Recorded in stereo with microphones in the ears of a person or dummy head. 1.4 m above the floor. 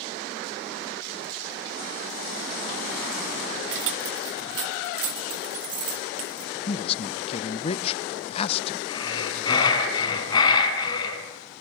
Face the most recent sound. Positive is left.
turn(degrees=25)  # may be behind; listen again after turning